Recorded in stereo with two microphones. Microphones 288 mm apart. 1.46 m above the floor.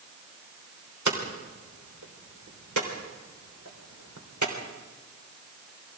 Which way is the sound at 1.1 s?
80° right.